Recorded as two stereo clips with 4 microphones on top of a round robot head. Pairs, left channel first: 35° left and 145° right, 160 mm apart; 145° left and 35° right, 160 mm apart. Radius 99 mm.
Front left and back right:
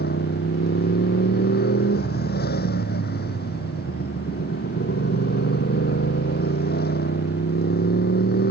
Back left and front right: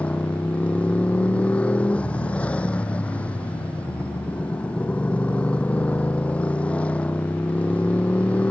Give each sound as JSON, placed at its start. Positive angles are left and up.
{"t": 0.0, "sound": "a motorcycle", "azimuth_deg": 65}